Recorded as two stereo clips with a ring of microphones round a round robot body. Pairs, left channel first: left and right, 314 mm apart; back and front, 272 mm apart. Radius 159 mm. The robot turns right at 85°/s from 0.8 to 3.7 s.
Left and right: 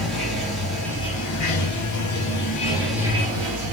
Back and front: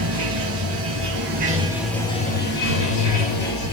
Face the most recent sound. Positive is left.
turn(degrees=-115)